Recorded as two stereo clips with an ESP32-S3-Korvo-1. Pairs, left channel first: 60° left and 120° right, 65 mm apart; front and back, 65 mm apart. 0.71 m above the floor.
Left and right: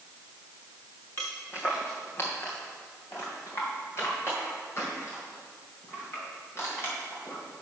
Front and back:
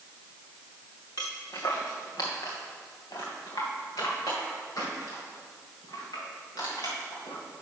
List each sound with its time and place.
1.2 s footsteps: 10° left, 2.5 m